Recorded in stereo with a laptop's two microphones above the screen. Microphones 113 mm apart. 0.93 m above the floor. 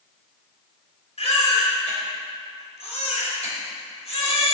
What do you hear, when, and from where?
1.2 s a baby crying: 70° left (ahead or behind), 3 m